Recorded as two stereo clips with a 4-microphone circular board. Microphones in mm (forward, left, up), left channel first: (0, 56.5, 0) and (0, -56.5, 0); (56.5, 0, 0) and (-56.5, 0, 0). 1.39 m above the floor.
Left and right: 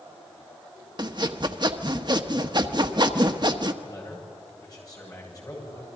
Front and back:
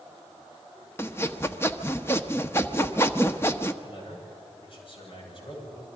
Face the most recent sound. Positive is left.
turn(degrees=35)